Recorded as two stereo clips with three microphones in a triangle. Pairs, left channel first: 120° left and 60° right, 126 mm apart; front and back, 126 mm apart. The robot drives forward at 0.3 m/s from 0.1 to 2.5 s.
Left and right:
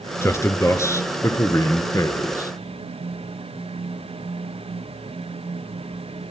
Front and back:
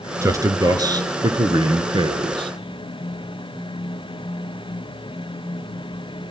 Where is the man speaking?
155° left, 1.5 m; by 2.5 s 170° left, 1.9 m.